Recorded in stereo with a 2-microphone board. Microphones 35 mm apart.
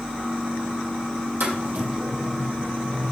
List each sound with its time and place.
1.4 s footsteps: 70° right (ahead or behind), 4 m; by 3.1 s 60° right (ahead or behind), 4.5 m